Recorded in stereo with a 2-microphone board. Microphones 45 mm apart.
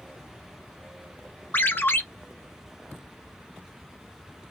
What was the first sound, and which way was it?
A ringtone, 55° left (ahead or behind).